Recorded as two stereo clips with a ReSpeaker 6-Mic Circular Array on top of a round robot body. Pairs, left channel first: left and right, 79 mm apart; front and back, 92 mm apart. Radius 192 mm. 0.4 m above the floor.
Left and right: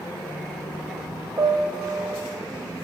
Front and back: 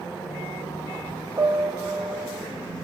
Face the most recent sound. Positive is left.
turn(degrees=-130)